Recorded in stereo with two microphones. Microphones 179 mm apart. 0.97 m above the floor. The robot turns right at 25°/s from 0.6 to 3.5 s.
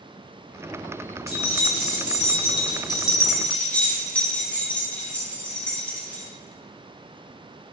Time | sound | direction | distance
1.3 | keys jangling | 60° left (ahead or behind) | 0.7 m